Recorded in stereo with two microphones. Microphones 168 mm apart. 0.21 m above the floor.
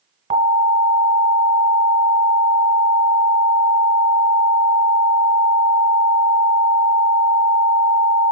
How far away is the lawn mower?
I don't hear a lawn mower.